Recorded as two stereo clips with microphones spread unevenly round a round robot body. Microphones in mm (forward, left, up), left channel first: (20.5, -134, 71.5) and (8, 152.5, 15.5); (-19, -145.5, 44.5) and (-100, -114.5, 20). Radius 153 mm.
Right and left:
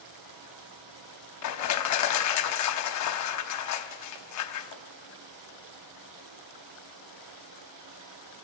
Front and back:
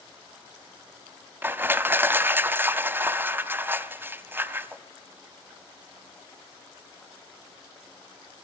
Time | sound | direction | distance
1.4 | crushing | 130° right | 0.6 m